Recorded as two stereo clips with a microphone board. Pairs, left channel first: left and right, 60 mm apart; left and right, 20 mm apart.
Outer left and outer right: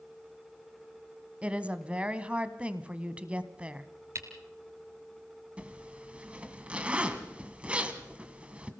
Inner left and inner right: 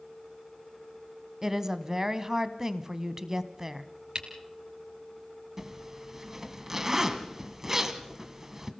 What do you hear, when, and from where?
1.4 s a woman speaking: 20° right (ahead or behind), 1.1 m
4.2 s a camera shutter: 50° right (ahead or behind), 3 m
5.6 s a zipper: 20° right (ahead or behind), 1.7 m